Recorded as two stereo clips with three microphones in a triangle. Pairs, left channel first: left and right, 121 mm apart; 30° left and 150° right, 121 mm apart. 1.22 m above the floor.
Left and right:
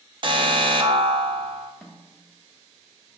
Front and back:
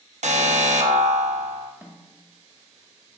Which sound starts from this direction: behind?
A snare drum, at 1.8 s.